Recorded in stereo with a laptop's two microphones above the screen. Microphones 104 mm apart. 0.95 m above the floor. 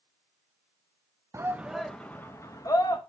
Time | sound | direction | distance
1.3 | a shout | 25° right (ahead or behind) | 0.7 m